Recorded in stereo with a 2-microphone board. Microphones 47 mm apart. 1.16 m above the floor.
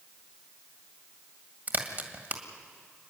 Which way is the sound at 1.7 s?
45° right (ahead or behind).